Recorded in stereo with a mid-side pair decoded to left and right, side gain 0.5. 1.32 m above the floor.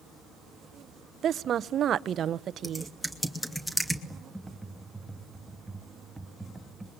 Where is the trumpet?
No trumpet in this recording.